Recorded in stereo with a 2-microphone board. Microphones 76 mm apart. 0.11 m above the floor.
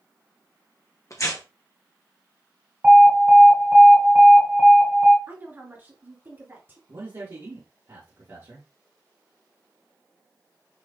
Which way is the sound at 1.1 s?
45° left (ahead or behind).